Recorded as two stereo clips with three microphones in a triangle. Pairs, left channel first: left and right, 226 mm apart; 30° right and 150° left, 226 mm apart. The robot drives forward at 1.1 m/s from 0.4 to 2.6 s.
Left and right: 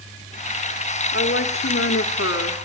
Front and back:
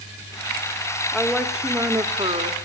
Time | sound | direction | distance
1.1 | a woman speaking | 55° left | 2.5 m